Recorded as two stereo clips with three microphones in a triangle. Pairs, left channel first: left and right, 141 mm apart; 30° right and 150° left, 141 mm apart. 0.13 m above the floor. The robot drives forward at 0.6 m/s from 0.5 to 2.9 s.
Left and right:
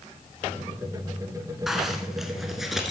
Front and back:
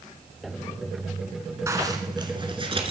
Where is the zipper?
175° right, 1.3 m; by 2.9 s straight behind, 1.7 m.